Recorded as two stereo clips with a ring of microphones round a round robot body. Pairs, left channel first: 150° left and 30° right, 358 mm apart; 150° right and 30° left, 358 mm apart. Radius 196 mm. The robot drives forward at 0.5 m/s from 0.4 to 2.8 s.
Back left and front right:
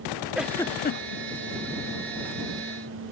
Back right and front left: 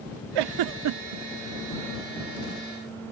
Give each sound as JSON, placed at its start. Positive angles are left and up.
{"t": 0.3, "sound": "a giggle", "azimuth_deg": 60}